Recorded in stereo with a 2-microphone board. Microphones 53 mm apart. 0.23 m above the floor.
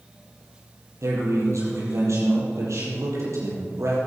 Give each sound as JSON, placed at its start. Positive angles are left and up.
{"t": 1.0, "sound": "a man speaking", "side_deg": -70, "distance_m": 6.0}